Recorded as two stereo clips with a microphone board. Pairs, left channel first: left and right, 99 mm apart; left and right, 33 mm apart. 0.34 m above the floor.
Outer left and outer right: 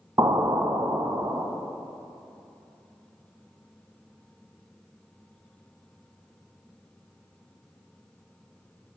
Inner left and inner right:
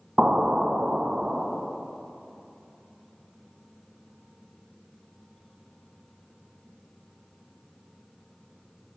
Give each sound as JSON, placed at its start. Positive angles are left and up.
{"t": 0.2, "sound": "an explosion", "side_deg": -35, "distance_m": 0.8}